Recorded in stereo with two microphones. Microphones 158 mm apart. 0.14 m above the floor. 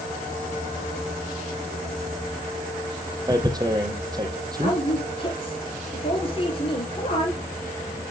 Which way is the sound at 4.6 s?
35° left (ahead or behind).